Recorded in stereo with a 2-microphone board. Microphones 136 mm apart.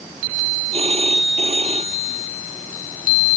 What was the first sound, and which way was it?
A phone ringing, 45° right (ahead or behind).